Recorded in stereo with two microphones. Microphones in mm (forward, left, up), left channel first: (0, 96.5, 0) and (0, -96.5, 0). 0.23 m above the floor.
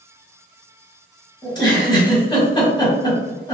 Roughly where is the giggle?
Left.